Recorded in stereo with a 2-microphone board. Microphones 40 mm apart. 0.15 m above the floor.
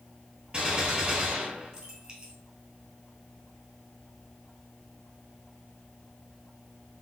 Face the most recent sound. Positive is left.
turn(degrees=-30)  # may be behind; listen again after turning